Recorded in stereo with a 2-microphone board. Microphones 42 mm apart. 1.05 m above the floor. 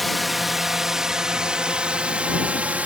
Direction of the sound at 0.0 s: Centre (ahead or behind).